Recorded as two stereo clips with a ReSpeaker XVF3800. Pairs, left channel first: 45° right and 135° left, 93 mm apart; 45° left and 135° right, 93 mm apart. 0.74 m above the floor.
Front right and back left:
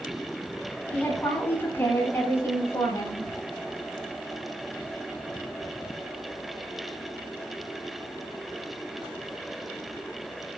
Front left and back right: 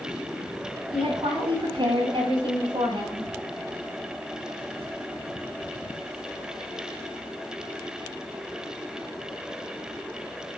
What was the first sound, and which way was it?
A woman speaking, 115° right.